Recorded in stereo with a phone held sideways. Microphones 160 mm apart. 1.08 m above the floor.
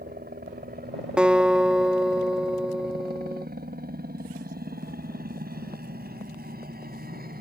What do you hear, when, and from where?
0.0 s a helicopter: 75° right (ahead or behind); by 7.4 s 70° right (ahead or behind)
1.2 s a guitar: 5° right (ahead or behind)